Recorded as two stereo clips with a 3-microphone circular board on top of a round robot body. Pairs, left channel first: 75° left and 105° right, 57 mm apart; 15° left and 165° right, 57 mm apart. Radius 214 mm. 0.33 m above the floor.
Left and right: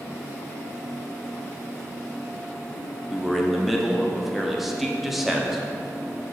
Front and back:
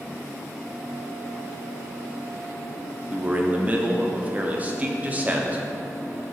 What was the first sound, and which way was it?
A man speaking, 170° left.